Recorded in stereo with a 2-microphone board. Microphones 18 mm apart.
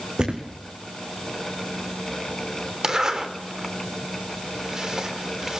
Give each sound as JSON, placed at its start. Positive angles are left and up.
{"t": 0.2, "sound": "a thud", "side_deg": -45, "distance_m": 2.5}
{"t": 2.8, "sound": "a zipper", "side_deg": -30, "distance_m": 3.0}